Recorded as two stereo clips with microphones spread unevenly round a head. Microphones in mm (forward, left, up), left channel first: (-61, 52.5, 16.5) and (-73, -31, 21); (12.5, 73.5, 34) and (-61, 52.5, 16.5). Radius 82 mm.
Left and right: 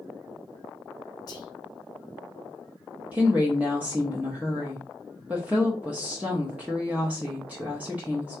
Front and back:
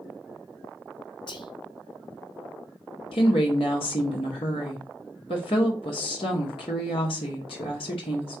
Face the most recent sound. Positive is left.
turn(degrees=-15)